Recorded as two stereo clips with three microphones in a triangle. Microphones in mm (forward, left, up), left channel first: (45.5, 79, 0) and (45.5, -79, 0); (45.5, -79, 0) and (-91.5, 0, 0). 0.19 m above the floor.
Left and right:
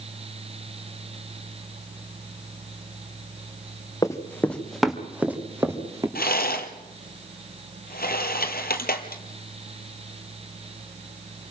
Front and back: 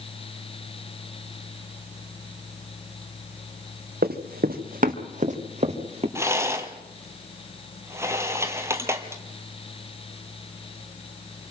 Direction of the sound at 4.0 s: 160° left.